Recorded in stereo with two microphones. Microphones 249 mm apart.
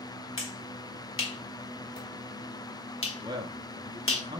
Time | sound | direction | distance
0.4 | a finger snap | 55° left (ahead or behind) | 1.2 m
3.2 | a man speaking | 15° right (ahead or behind) | 0.6 m